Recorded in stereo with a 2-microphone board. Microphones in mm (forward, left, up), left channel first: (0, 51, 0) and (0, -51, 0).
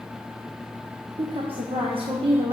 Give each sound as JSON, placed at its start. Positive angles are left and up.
{"t": 1.2, "sound": "a woman speaking", "side_deg": -60, "distance_m": 1.1}